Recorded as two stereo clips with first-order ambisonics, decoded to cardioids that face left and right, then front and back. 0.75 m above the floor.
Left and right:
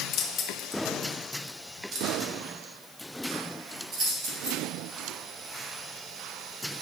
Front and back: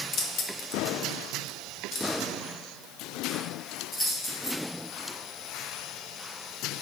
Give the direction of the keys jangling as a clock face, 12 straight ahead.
10 o'clock.